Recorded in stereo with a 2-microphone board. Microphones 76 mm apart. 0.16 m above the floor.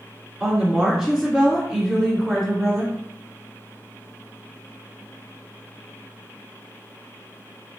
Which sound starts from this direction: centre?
A woman speaking, at 0.4 s.